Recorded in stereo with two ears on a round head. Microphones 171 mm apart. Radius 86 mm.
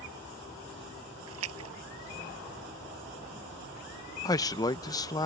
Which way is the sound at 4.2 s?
20° left (ahead or behind).